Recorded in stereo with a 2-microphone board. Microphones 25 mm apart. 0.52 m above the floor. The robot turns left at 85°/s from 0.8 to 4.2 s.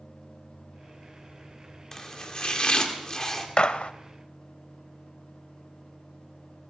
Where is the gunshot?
135° left, 0.5 m; by 3.9 s 105° left, 0.5 m.